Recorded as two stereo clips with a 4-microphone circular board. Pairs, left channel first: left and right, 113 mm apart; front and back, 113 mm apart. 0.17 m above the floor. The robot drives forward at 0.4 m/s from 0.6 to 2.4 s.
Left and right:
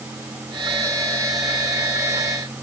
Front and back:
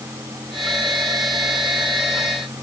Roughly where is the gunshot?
No gunshot in this recording.